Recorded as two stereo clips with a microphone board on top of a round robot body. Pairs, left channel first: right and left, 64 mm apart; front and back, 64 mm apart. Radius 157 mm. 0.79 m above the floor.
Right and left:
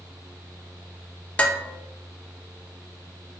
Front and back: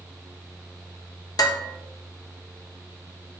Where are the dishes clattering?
20° right, 1.1 m.